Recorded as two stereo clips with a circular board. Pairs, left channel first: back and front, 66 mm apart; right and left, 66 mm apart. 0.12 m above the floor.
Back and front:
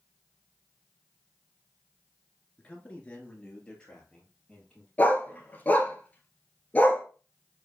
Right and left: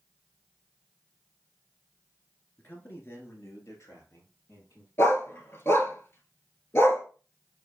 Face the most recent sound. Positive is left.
turn(degrees=-125)